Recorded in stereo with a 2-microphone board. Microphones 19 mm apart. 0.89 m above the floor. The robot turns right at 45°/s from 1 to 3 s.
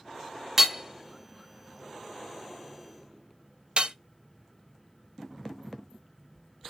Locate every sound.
0.6 s hammering: 10° right (ahead or behind), 0.7 m; by 4.0 s 55° right (ahead or behind), 0.7 m